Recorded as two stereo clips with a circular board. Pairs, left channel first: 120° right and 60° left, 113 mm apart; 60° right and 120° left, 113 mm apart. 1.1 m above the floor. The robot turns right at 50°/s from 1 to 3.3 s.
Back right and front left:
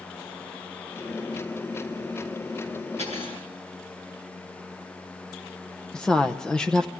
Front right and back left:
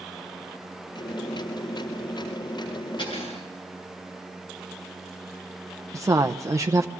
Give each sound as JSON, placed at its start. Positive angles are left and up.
{"t": 3.0, "sound": "cutlery clinking", "azimuth_deg": -105, "distance_m": 8.0}
{"t": 5.9, "sound": "a woman speaking", "azimuth_deg": 160, "distance_m": 0.7}